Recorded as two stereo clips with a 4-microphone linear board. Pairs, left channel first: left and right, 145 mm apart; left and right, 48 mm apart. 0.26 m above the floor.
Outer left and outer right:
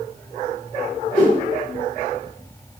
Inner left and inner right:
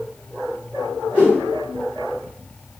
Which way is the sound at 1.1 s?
25° left (ahead or behind).